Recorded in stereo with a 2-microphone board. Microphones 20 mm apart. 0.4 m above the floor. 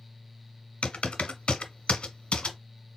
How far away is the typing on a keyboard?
About 0.9 m.